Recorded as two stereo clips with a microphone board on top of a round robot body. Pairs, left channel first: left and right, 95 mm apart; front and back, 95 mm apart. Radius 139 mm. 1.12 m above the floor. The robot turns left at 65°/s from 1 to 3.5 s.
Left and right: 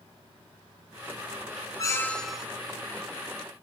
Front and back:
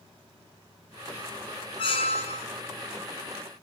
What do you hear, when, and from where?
1.8 s a squeak: 35° left, 0.5 m; by 2.5 s 10° right, 0.5 m